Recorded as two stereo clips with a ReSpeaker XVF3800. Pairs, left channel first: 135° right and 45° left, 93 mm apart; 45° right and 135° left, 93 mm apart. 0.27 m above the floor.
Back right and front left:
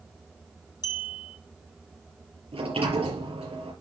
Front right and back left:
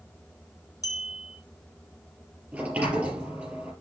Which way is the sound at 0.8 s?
95° right.